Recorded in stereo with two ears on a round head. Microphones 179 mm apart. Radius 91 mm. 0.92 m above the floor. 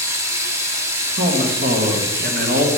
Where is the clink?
No clink in this recording.